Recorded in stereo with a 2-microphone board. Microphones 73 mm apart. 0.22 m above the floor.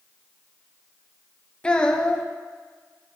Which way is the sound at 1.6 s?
15° left (ahead or behind).